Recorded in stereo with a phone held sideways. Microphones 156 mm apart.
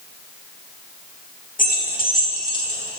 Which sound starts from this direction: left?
Keys jangling, at 1.6 s.